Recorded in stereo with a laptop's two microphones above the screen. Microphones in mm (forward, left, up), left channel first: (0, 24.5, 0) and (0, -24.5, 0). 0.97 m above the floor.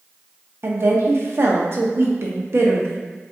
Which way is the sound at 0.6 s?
55° right (ahead or behind).